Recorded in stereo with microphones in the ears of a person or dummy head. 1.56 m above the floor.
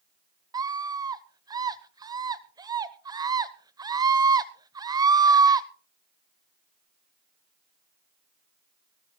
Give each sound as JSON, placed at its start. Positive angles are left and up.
{"t": 0.5, "sound": "a scream", "side_deg": -20, "distance_m": 0.9}